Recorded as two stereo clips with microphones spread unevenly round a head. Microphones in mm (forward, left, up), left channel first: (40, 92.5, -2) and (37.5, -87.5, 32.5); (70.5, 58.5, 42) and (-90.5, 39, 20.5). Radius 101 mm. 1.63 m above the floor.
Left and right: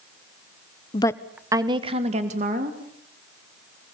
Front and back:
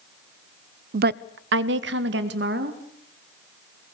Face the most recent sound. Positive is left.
turn(degrees=-140)